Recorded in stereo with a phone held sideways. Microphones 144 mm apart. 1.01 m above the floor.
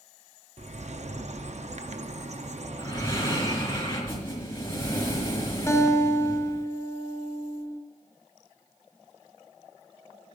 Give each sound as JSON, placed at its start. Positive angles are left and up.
{"t": 0.6, "sound": "a bird", "side_deg": -60, "distance_m": 0.6}
{"t": 2.8, "sound": "breathing", "side_deg": 20, "distance_m": 4.0}
{"t": 5.7, "sound": "a guitar", "side_deg": 20, "distance_m": 1.1}